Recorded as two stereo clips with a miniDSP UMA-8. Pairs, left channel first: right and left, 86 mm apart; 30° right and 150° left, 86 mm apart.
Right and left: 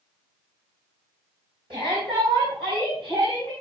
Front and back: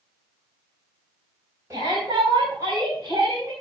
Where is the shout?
95° left, 5 m.